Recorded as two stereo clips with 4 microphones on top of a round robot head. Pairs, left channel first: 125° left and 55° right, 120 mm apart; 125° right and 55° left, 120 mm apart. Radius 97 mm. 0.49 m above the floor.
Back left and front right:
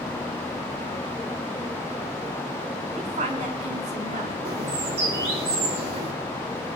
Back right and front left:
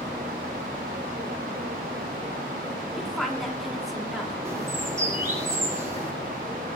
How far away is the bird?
About 5 m.